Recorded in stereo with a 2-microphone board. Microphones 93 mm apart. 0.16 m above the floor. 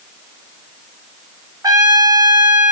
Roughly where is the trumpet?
Right.